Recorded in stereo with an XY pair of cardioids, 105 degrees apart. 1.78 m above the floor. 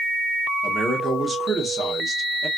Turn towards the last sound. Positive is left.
turn(degrees=-30)